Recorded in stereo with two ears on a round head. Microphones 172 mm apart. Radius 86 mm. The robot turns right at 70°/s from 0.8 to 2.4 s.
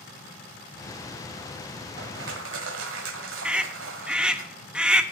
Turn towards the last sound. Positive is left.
turn(degrees=-5)  # may be behind; listen again after turning